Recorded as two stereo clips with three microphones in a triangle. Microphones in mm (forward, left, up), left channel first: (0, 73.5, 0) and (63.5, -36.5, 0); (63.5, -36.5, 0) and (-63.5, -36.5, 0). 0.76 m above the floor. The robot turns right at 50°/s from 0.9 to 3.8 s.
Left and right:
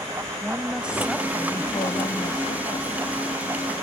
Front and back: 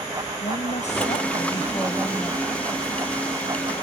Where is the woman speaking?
20° left; by 2.9 s 120° left.